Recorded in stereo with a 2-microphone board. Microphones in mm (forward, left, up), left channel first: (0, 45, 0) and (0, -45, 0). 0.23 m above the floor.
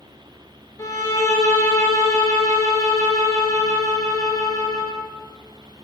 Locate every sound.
0.8 s a violin: 40° left (ahead or behind), 1.0 m